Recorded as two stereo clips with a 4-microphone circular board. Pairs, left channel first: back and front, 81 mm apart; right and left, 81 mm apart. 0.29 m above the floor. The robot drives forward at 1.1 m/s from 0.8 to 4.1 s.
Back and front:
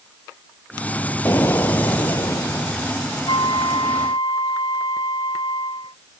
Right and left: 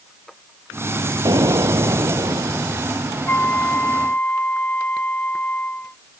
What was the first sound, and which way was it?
An explosion, 120° left.